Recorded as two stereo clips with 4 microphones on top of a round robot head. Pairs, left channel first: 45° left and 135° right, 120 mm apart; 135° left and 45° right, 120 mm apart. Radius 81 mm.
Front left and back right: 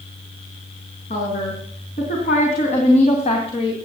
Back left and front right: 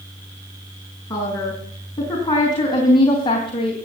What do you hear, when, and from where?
1.1 s a woman speaking: 70° left, 5 m; by 3.8 s 90° left, 2 m